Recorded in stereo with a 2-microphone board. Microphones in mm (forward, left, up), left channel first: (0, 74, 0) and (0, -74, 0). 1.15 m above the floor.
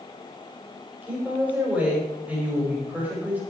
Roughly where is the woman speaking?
Centre.